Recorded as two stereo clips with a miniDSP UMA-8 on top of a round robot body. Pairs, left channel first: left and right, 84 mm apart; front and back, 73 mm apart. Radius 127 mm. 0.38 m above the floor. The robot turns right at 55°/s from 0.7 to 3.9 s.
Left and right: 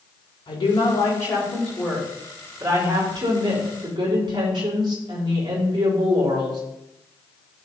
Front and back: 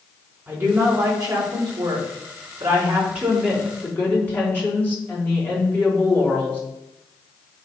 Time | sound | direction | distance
0.5 | a woman speaking | 120° left | 4 m